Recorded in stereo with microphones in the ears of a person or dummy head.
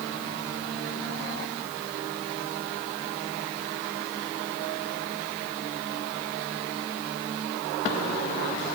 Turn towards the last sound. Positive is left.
No sound to turn to.